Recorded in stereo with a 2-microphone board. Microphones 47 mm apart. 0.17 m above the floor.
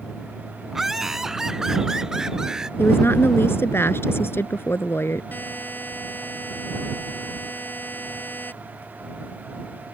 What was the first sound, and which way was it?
Laughter, 5° right (ahead or behind).